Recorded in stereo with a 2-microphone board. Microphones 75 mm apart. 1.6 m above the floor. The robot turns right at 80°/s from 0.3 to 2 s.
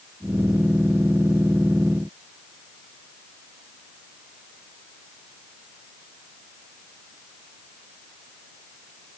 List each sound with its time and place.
Only background noise.